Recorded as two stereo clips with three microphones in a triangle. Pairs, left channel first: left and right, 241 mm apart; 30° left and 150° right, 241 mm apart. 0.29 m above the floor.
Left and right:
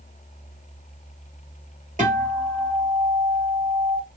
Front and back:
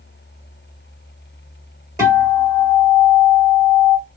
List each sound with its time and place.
2.0 s a guitar: 85° right, 1.7 m